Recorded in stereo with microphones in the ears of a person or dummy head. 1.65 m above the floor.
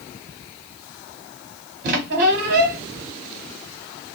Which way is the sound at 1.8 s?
45° right (ahead or behind).